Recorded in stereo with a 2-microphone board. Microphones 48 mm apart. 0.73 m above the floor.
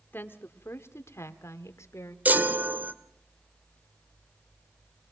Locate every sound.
0.1 s a woman speaking: 45° left (ahead or behind), 1.8 m; by 2.1 s 75° left (ahead or behind), 2 m
2.2 s a chime: 35° right (ahead or behind), 1.7 m